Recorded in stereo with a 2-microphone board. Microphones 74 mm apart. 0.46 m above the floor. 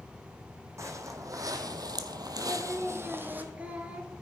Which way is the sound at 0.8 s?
40° right (ahead or behind).